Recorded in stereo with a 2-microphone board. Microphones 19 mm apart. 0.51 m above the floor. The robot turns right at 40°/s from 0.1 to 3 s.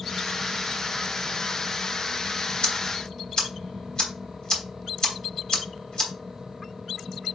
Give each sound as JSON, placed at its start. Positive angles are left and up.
{"t": 2.6, "sound": "ticking", "side_deg": 50, "distance_m": 2.5}